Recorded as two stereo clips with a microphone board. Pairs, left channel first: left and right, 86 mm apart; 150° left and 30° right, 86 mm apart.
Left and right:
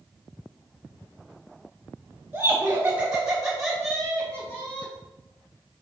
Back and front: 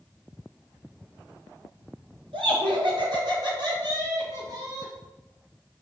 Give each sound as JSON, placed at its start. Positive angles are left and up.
{"t": 2.3, "sound": "laughter", "azimuth_deg": -20, "distance_m": 3.0}